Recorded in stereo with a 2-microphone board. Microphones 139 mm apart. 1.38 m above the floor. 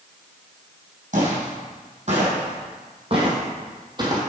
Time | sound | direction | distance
1.1 | footsteps | 60° right (ahead or behind) | 3 m